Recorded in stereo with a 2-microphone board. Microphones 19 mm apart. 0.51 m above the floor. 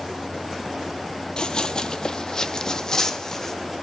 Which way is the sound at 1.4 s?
50° left (ahead or behind).